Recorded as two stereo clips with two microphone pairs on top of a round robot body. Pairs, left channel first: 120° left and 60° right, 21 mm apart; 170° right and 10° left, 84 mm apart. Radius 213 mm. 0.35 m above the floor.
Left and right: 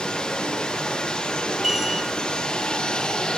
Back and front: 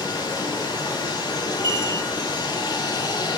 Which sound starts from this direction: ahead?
A chime, at 1.6 s.